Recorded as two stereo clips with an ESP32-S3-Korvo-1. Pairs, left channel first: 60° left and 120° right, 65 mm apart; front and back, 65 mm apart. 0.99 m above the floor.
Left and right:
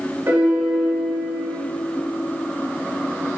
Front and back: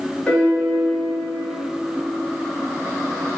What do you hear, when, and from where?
0.3 s a piano: 70° right, 2 m